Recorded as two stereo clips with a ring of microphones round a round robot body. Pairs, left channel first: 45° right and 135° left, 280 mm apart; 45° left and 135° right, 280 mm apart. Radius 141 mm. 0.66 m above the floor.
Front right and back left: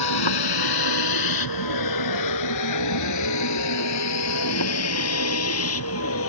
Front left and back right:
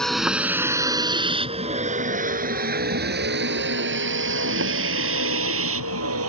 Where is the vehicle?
45° right; by 6.3 s 90° right.